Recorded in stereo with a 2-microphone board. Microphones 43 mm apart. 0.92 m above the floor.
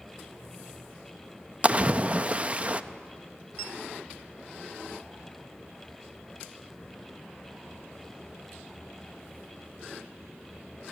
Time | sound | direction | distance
1.6 | a splash | 30° right (ahead or behind) | 0.6 m